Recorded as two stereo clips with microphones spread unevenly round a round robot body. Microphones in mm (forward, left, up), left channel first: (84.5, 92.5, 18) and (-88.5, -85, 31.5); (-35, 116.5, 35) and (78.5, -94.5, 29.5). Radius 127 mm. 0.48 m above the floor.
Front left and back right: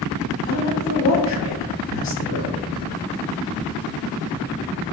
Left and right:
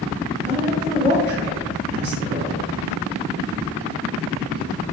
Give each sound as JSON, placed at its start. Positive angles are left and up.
{"t": 0.4, "sound": "a woman speaking", "azimuth_deg": -5, "distance_m": 1.2}